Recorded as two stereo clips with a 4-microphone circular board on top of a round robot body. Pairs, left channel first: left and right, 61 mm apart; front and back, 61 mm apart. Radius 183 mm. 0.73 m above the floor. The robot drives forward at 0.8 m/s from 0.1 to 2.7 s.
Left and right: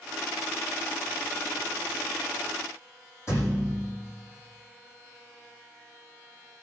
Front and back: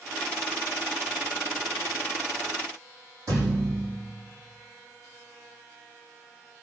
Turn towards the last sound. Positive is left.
turn(degrees=135)